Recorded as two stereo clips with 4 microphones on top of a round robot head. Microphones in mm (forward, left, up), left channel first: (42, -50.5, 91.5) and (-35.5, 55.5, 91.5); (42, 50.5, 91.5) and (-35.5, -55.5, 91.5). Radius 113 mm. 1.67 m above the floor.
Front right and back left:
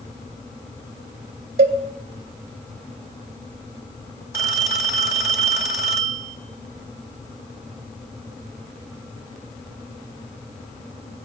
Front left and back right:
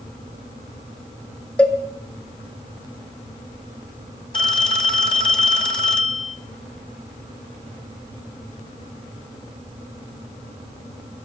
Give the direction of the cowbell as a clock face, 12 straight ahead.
8 o'clock.